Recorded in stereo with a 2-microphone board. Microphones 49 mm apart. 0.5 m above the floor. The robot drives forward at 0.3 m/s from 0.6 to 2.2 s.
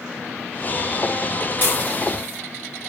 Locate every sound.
1.6 s dishes clattering: 45° left (ahead or behind), 1.1 m; by 2.4 s 40° left (ahead or behind), 1.2 m